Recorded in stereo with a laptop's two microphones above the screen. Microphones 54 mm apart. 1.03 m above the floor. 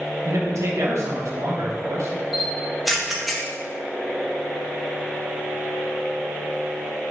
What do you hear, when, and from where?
0.2 s a man speaking: 65° right (ahead or behind), 0.9 m
2.3 s a camera shutter: centre (ahead or behind), 0.9 m